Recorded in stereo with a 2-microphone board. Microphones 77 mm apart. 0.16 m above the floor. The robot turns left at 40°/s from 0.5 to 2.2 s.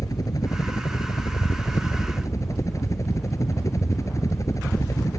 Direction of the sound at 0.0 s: 120° left.